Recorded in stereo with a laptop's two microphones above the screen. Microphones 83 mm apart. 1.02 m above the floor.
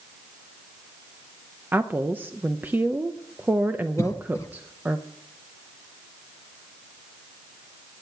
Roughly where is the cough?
Left.